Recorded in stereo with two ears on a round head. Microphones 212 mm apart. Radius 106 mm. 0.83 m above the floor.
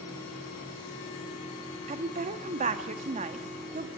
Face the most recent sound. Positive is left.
turn(degrees=-30)  # may be behind; listen again after turning